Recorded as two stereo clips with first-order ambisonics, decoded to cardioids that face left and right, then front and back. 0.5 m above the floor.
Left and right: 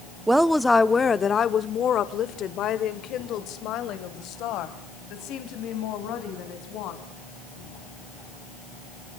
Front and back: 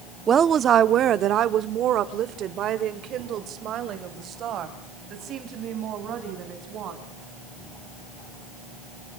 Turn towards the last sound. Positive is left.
turn(degrees=125)